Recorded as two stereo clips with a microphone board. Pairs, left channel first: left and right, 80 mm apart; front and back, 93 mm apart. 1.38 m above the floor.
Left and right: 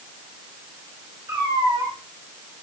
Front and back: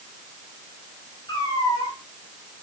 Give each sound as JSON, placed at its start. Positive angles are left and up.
{"t": 1.3, "sound": "a cat meowing", "azimuth_deg": -45, "distance_m": 7.5}